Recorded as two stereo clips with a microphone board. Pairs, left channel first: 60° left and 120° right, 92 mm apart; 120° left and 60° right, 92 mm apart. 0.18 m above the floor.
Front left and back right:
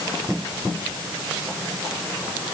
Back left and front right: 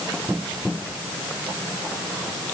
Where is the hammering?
No hammering in this recording.